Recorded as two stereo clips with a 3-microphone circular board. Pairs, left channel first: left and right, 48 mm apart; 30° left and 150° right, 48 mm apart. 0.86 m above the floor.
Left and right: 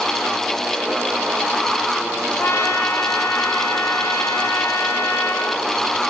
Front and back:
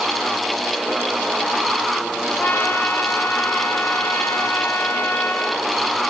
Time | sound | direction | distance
2.4 | a trumpet | 65° left | 1.9 m